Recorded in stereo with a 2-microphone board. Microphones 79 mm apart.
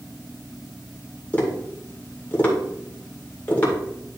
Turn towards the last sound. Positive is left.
turn(degrees=20)  # may be behind; listen again after turning